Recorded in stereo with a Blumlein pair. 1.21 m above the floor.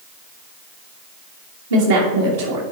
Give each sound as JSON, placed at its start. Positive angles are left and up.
{"t": 1.7, "sound": "a woman speaking", "azimuth_deg": -70, "distance_m": 1.5}